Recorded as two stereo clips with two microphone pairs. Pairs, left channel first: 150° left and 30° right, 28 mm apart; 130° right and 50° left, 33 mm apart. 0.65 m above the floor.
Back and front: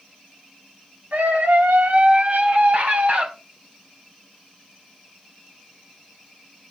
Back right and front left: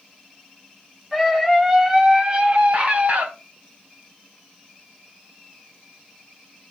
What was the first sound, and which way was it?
A scream, 35° right.